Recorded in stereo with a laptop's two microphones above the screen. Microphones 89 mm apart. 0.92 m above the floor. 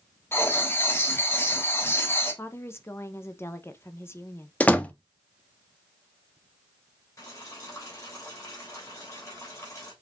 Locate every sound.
0.3 s writing: 25° left (ahead or behind), 1.4 m
2.4 s a woman speaking: 25° left (ahead or behind), 0.6 m
4.6 s a door slam: 15° left (ahead or behind), 0.9 m
7.2 s boiling: 35° left (ahead or behind), 3 m